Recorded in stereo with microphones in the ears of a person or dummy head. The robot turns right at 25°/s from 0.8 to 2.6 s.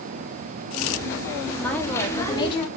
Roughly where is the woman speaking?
Centre.